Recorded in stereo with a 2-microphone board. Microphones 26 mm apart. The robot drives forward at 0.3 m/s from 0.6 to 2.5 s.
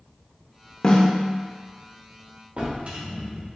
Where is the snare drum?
35° left (ahead or behind), 0.8 m; by 1.1 s 30° left (ahead or behind), 0.9 m.